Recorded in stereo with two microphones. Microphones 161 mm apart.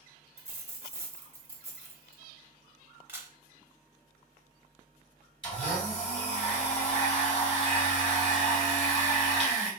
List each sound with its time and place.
0.4 s a dropped coin: 10° right (ahead or behind), 0.9 m
3.1 s a camera shutter: 10° right (ahead or behind), 0.7 m
5.4 s a blender: 35° left (ahead or behind), 1.9 m